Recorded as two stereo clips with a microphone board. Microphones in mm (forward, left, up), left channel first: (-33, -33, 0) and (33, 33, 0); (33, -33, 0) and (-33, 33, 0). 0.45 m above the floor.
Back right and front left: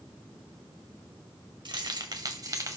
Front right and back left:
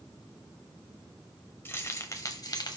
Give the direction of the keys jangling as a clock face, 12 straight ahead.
11 o'clock.